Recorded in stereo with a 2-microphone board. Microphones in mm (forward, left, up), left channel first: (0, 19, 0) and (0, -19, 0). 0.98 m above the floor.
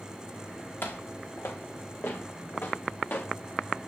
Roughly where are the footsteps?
Left.